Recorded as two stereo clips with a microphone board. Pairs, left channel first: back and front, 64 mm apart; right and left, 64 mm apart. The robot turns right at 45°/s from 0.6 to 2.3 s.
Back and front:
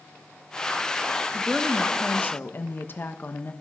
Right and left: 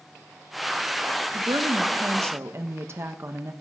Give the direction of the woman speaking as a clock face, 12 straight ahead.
9 o'clock.